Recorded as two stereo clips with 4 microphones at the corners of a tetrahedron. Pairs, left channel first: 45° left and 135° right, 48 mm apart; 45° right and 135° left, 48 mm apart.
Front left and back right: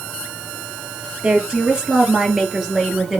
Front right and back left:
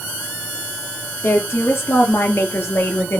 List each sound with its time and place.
1.2 s a woman speaking: 70° right, 4 m; by 3.2 s 60° right, 2.5 m